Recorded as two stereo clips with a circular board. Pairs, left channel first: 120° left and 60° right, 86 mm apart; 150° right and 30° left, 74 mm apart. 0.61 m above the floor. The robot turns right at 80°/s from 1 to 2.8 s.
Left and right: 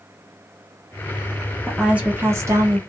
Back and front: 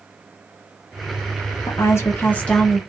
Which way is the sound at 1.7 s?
150° right.